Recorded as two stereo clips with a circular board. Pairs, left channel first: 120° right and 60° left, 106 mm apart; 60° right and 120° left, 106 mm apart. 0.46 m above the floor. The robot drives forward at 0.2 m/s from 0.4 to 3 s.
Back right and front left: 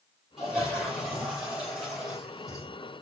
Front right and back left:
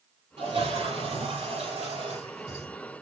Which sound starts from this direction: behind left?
A toilet flushing, at 0.4 s.